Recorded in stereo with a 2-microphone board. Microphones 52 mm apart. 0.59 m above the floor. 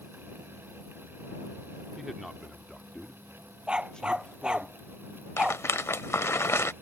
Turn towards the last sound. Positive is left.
turn(degrees=55)  # may be behind; listen again after turning